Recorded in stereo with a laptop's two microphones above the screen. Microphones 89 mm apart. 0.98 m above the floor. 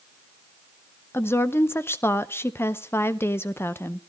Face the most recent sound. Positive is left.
turn(degrees=25)  # may be behind; listen again after turning